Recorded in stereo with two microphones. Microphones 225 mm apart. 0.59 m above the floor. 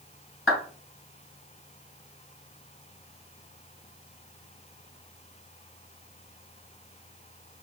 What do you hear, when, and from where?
0.5 s a clap: 65° left (ahead or behind), 3.5 m